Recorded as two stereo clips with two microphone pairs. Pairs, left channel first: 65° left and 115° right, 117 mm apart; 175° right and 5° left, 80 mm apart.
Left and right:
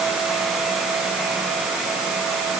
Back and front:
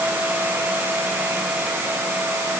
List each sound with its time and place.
Only background noise.